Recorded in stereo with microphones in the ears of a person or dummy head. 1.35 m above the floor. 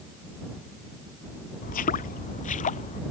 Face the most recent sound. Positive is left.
turn(degrees=40)  # may be behind; listen again after turning